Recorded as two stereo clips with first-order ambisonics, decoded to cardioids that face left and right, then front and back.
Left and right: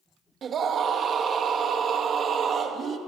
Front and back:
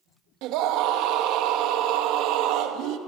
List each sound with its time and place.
0.4 s a scream: 150° right, 2 m